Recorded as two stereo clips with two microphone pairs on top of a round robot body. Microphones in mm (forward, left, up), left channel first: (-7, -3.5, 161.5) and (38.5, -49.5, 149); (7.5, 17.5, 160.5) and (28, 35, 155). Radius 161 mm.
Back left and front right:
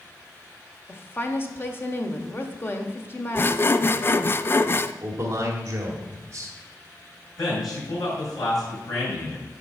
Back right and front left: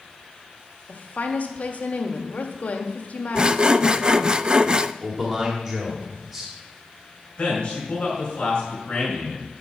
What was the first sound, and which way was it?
A woman speaking, 165° right.